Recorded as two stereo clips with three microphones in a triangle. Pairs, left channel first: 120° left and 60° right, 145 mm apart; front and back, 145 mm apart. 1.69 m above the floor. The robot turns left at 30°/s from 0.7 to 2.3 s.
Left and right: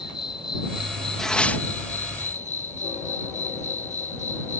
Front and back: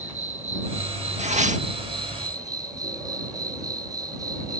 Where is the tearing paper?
155° right; by 1.6 s 165° right.